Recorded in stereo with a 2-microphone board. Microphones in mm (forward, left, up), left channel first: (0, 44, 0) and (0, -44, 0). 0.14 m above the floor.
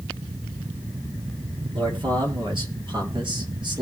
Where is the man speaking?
65° right (ahead or behind), 4.5 m; by 3.8 s 60° right (ahead or behind), 3.5 m.